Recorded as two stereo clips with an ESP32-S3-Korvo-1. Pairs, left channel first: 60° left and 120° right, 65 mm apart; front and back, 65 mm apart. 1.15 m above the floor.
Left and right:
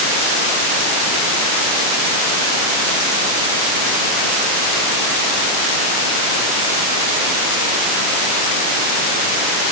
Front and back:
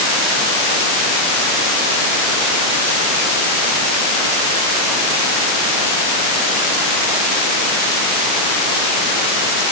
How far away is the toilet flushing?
No toilet flushing in this recording.